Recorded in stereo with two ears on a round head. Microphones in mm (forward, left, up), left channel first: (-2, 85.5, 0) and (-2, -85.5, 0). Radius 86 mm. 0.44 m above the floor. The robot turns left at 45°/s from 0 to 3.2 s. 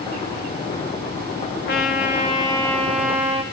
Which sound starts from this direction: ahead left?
A trumpet, at 1.7 s.